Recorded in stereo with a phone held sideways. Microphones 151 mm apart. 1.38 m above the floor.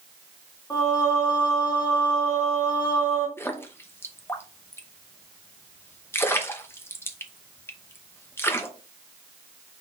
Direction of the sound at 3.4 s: 15° left (ahead or behind).